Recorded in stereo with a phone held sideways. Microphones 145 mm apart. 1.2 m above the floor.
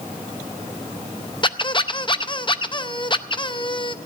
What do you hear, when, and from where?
1.4 s a squeak: 35° left (ahead or behind), 0.5 m